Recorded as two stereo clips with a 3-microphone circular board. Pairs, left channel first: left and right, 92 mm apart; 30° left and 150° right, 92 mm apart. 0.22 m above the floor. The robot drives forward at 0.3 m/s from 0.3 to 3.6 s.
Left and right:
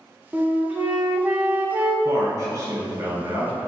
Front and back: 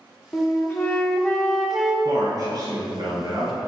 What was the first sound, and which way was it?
A flute, 20° right.